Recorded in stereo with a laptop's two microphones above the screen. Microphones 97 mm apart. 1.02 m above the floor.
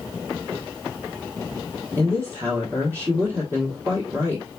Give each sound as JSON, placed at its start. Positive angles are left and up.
{"t": 2.0, "sound": "a woman speaking", "side_deg": -30, "distance_m": 1.2}